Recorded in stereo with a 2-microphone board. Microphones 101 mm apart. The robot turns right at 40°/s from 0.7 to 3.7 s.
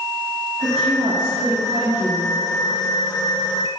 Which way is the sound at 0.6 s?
85° right.